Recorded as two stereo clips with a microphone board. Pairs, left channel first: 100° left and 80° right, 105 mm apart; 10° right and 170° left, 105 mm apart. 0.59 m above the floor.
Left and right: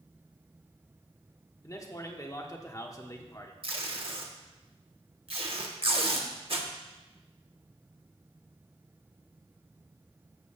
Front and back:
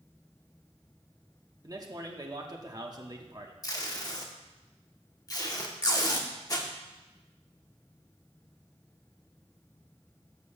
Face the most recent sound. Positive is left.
turn(degrees=-60)